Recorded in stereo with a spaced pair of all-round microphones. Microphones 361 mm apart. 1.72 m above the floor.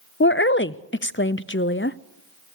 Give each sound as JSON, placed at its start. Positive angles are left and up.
{"t": 0.2, "sound": "a woman speaking", "side_deg": 35, "distance_m": 0.6}